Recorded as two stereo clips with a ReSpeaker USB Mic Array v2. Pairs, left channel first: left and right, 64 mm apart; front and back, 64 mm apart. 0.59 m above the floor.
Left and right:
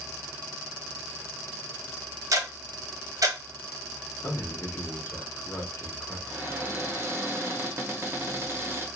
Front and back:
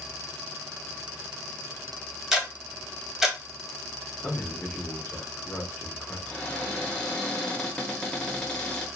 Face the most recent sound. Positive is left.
turn(degrees=-70)